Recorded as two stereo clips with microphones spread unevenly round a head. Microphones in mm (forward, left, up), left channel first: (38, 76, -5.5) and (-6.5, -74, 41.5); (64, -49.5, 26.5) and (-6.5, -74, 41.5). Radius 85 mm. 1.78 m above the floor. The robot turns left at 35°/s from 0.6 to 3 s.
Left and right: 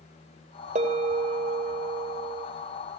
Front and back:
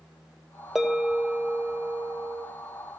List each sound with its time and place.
0.8 s a bell: 85° right, 2.5 m; by 2.5 s 145° right, 2.5 m